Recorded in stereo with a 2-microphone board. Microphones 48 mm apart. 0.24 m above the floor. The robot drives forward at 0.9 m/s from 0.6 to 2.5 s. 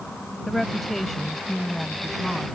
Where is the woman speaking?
5° left (ahead or behind); by 2.5 s centre (ahead or behind).